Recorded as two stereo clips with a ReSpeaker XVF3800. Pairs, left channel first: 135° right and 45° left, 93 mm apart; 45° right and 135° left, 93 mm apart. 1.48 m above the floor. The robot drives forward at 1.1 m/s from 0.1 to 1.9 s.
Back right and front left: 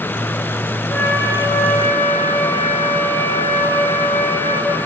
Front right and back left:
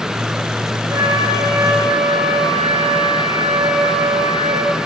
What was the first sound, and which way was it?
A flute, 170° left.